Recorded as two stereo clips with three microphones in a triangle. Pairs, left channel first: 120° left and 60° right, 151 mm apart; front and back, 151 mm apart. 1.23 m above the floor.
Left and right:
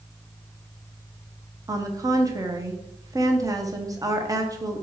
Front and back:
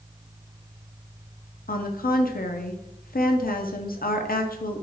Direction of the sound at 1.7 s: 5° left.